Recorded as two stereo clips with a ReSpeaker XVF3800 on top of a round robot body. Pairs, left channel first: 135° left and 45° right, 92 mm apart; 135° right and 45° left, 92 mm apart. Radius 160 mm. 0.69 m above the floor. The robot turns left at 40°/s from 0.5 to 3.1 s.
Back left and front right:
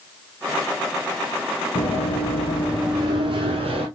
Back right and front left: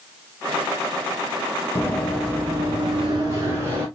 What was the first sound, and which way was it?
Running footsteps, 170° left.